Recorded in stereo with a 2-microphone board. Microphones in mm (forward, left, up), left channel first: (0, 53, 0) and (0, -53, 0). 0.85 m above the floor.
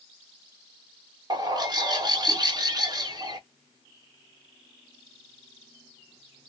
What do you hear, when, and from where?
1.3 s a bird: 40° right (ahead or behind), 0.7 m